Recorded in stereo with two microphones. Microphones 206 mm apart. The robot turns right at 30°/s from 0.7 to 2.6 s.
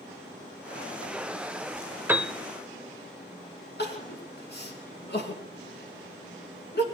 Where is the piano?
10° right (ahead or behind), 0.9 m; by 2.3 s 5° right (ahead or behind), 0.9 m.